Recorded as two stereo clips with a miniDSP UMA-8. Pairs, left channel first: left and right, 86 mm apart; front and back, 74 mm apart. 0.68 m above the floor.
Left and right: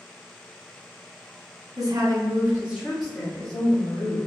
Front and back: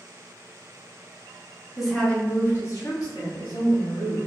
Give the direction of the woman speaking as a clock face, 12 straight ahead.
3 o'clock.